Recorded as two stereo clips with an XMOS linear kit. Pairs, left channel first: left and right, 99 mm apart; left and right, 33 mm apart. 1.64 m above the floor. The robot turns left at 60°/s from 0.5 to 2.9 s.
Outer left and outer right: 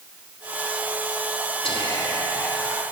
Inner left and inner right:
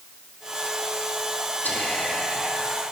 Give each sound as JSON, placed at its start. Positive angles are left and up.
{"t": 1.6, "sound": "whispering", "azimuth_deg": 75, "distance_m": 3.0}